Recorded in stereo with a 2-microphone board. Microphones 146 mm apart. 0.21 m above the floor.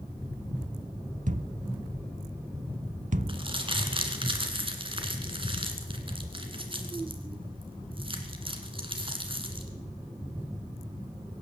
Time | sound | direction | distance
1.3 | a thud | 60° right (ahead or behind) | 0.5 m
3.3 | crumpling | 35° right (ahead or behind) | 1.7 m